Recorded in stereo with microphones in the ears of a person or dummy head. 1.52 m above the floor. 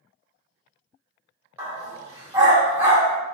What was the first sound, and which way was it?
A dog barking, 15° right (ahead or behind).